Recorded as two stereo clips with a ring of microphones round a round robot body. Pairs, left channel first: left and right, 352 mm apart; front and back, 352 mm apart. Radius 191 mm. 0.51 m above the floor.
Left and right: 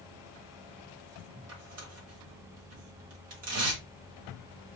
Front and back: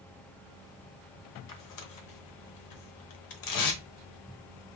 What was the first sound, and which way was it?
Tearing paper, 35° right.